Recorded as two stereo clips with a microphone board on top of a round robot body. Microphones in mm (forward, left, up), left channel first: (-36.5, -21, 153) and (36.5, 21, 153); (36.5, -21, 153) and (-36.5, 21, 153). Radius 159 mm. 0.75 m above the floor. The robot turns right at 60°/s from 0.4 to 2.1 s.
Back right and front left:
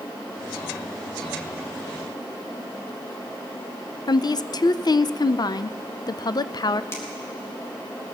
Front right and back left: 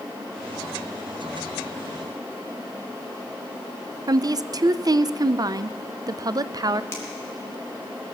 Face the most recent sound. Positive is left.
turn(degrees=-90)